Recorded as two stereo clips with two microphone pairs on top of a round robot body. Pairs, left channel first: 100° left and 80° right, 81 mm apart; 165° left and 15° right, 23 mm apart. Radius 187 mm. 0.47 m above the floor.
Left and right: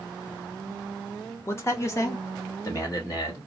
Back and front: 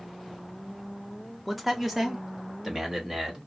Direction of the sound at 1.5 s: 80° left.